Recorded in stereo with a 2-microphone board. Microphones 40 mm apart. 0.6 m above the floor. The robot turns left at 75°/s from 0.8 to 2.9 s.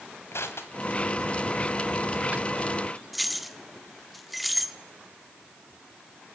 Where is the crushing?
75° left (ahead or behind), 2 m; by 2.7 s 65° right (ahead or behind), 2 m.